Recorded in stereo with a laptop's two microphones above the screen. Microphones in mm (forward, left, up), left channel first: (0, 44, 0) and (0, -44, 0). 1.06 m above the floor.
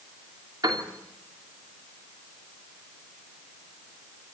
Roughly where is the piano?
Right.